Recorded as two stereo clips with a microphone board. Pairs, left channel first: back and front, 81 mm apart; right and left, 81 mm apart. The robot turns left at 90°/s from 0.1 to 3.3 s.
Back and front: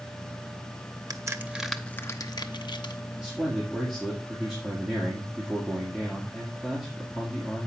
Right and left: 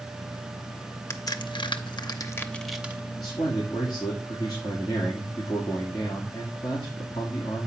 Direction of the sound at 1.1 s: 35° right.